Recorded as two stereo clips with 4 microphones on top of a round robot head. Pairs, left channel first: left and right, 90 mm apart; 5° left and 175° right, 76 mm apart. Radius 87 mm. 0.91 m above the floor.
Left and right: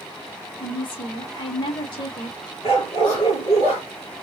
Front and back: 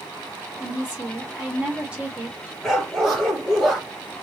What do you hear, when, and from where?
0.6 s a woman speaking: 110° left, 1.6 m
2.6 s a dog barking: 95° left, 3 m